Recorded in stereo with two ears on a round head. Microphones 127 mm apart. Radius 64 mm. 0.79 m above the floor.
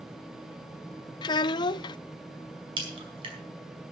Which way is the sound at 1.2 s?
30° left (ahead or behind).